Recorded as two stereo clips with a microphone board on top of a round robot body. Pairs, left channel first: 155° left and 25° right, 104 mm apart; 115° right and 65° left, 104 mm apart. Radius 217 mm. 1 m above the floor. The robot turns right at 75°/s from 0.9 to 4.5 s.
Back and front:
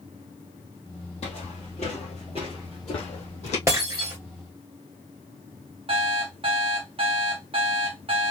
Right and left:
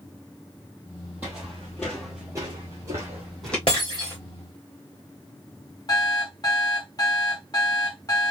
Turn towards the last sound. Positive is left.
turn(degrees=-60)